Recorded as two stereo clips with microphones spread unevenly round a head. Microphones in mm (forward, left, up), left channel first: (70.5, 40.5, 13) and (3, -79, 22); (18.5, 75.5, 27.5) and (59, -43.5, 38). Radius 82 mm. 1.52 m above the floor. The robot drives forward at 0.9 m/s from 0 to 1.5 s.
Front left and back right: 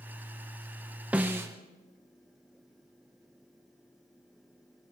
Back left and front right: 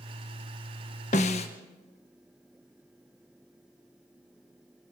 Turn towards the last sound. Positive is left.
turn(degrees=165)